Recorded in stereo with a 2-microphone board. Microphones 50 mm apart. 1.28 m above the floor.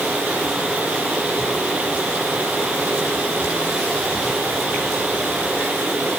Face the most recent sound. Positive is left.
No sound to turn to.